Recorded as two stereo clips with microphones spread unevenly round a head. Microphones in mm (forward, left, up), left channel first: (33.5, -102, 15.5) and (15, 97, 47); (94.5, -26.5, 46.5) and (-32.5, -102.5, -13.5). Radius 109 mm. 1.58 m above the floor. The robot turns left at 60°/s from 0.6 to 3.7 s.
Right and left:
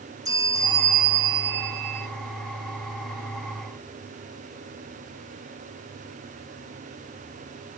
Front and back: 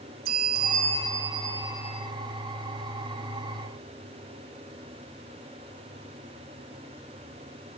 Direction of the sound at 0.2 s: 170° left.